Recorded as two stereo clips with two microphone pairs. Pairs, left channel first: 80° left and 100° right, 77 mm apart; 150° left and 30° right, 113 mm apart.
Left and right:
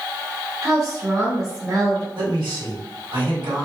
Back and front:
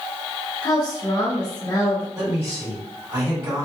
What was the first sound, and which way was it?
A woman speaking, 150° right.